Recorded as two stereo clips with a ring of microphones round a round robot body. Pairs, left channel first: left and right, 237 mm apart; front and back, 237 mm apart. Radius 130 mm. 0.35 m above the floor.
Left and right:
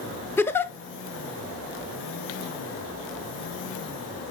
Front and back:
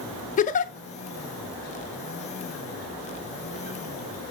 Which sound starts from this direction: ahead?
A giggle, at 0.4 s.